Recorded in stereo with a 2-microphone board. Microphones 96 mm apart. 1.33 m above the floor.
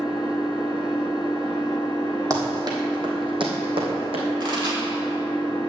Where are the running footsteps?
30° right (ahead or behind), 2.5 m; by 4.2 s 65° right (ahead or behind), 3.5 m.